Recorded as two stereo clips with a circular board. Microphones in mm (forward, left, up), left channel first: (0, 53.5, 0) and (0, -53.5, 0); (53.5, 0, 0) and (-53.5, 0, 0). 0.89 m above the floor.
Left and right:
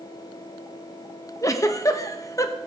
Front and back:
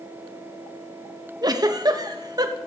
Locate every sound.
1.4 s a giggle: 140° left, 0.6 m